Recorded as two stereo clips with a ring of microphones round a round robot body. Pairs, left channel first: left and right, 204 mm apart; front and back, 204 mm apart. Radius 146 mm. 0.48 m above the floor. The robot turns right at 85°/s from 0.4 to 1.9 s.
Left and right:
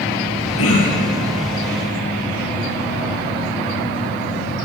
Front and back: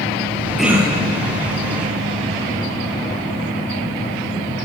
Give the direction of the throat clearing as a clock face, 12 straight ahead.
9 o'clock.